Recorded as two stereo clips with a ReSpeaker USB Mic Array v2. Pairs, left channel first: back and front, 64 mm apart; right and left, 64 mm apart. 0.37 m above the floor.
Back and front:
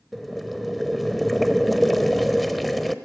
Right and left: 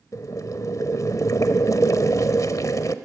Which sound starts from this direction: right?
Boiling, at 0.1 s.